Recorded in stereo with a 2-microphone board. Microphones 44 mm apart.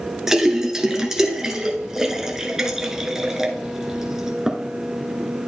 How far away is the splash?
About 1.1 m.